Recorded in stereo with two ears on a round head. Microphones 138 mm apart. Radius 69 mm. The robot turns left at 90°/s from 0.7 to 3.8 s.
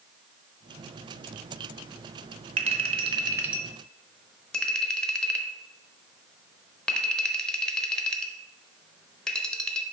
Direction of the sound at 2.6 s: 40° right (ahead or behind).